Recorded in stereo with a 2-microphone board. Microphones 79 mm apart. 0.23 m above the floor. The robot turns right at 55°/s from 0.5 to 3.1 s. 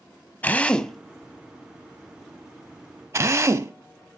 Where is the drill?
20° left (ahead or behind), 0.5 m; by 3.7 s 40° right (ahead or behind), 0.5 m.